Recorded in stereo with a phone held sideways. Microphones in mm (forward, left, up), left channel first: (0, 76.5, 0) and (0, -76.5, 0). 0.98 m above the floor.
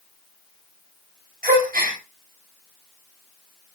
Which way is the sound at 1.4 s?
65° right (ahead or behind).